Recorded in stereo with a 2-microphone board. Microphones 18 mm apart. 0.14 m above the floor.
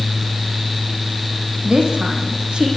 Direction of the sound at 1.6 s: 75° right (ahead or behind).